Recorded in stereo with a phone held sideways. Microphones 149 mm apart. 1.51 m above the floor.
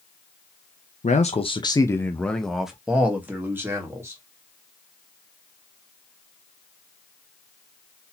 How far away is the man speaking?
About 0.6 m.